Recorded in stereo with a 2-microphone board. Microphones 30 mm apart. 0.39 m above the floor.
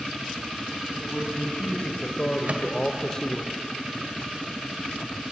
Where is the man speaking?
40° left (ahead or behind), 3 m; by 3.5 s 15° left (ahead or behind), 1.4 m.